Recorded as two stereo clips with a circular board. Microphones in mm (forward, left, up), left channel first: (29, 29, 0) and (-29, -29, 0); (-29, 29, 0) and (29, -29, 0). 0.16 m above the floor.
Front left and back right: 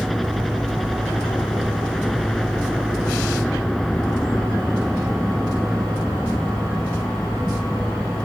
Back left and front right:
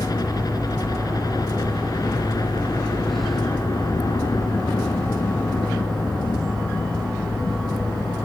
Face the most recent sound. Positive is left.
turn(degrees=135)